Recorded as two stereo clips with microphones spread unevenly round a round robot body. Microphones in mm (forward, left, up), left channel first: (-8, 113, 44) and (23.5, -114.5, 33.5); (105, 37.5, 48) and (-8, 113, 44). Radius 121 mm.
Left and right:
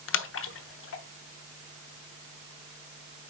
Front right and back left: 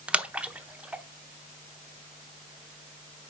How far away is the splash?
About 0.9 m.